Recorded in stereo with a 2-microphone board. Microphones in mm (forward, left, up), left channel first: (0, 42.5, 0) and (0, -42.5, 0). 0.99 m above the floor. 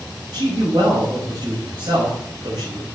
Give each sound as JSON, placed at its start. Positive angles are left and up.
{"t": 0.3, "sound": "a man speaking", "side_deg": -65, "distance_m": 5.0}